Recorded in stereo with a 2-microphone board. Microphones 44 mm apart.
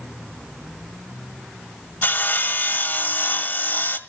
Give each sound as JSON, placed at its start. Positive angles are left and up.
{"t": 2.0, "sound": "sawing", "side_deg": 45, "distance_m": 1.5}